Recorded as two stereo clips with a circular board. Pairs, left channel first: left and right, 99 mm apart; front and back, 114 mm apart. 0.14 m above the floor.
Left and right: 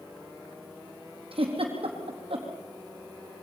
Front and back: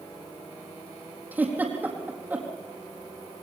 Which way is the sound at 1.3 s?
105° right.